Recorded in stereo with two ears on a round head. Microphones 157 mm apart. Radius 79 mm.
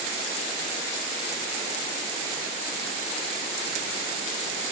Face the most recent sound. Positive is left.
No sound to turn to.